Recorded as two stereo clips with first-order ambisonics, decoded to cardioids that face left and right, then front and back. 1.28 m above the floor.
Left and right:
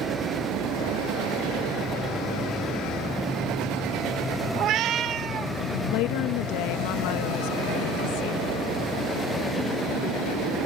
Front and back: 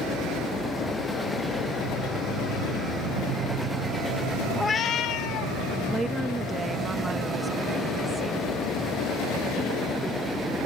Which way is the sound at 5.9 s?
100° left.